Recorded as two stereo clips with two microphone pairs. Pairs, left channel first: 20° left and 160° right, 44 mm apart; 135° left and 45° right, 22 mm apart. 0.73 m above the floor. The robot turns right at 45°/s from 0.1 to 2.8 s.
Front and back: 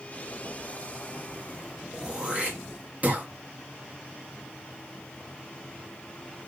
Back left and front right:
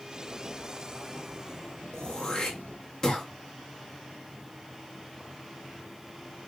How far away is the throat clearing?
About 1.1 m.